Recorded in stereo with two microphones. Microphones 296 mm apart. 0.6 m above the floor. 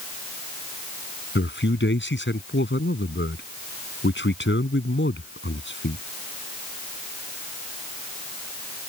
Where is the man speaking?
40° left (ahead or behind).